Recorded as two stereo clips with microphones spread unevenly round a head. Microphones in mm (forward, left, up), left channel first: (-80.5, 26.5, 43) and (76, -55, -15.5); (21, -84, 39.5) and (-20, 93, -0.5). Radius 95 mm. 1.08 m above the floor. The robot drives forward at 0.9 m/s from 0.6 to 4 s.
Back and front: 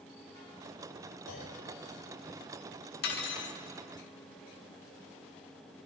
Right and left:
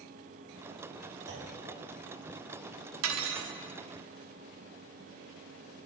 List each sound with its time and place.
1.3 s a clunk: 135° left, 6 m
3.0 s cutlery clinking: 120° left, 1.2 m; by 3.6 s 135° left, 1.5 m